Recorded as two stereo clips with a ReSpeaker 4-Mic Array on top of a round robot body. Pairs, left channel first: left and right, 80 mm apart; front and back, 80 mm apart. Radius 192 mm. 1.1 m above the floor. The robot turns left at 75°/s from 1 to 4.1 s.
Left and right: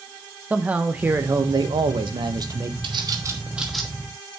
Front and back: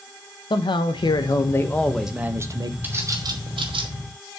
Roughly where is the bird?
Right.